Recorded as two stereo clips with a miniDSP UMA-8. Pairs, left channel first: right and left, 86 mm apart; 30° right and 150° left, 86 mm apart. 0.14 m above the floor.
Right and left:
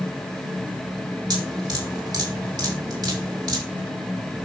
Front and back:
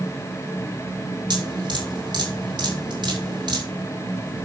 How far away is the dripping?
About 5.5 m.